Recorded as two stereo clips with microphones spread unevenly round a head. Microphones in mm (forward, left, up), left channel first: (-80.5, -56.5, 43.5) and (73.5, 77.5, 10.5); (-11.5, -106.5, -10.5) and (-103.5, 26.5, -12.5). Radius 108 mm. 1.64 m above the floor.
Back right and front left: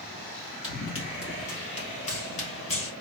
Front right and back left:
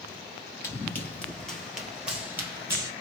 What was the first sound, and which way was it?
Running footsteps, 115° right.